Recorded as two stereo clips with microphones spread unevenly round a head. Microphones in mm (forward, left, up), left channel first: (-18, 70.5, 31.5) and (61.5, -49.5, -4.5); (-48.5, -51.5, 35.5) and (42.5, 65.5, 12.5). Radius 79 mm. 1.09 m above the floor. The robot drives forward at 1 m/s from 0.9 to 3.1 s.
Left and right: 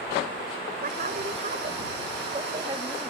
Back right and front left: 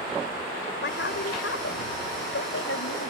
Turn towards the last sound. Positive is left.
turn(degrees=-130)